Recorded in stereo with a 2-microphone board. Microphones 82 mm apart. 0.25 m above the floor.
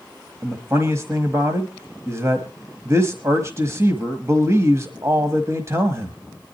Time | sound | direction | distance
0.4 | a man speaking | 35° right (ahead or behind) | 1.2 m